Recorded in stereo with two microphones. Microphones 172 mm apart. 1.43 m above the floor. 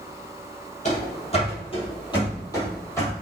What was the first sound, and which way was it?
Running footsteps, 40° left (ahead or behind).